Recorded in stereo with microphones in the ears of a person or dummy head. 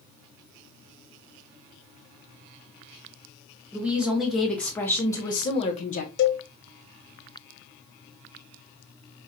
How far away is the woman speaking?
About 1.5 m.